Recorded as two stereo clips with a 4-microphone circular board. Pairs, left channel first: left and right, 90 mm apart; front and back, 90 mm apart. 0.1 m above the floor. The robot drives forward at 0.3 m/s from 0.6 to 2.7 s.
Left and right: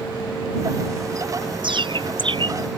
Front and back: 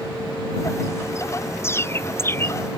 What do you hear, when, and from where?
1.6 s a bird: 60° right; by 2.5 s 65° right